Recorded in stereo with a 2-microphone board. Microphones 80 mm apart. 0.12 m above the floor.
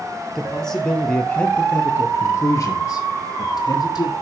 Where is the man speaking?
5° left (ahead or behind), 2.5 m; by 4.1 s 55° left (ahead or behind), 2.5 m.